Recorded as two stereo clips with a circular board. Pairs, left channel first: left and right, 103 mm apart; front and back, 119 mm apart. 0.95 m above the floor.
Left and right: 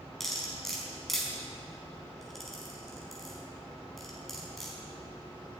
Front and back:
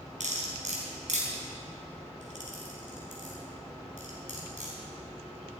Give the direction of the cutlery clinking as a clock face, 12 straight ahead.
6 o'clock.